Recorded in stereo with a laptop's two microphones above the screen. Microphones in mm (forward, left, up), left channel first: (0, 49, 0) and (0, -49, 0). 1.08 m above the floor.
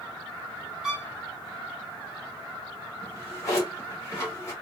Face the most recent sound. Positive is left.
turn(degrees=35)  # may be behind; listen again after turning